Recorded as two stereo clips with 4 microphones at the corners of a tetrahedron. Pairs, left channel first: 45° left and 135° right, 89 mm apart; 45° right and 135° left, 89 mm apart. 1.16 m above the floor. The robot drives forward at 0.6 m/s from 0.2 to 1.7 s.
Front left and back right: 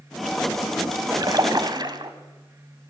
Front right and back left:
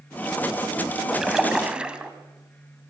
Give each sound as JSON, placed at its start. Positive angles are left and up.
{"t": 1.1, "sound": "a splash", "azimuth_deg": -140, "distance_m": 1.4}